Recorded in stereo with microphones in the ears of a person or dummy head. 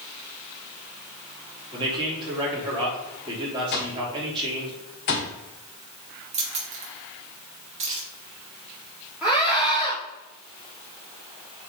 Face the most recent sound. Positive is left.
turn(degrees=-10)  # may be behind; listen again after turning